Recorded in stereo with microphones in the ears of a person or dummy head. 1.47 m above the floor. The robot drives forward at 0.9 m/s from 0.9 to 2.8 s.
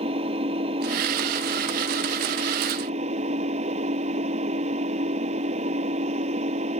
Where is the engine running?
30° right (ahead or behind); by 6.8 s 35° right (ahead or behind).